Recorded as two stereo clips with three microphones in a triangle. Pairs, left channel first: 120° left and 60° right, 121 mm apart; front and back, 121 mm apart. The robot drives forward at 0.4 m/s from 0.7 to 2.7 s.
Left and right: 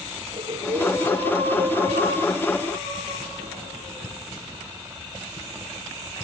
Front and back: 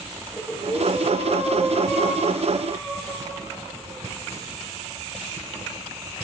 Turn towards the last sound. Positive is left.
turn(degrees=-100)